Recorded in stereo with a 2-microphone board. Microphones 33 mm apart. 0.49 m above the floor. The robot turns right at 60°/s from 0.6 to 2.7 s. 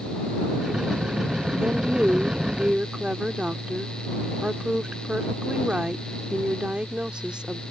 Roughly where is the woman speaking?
Behind right.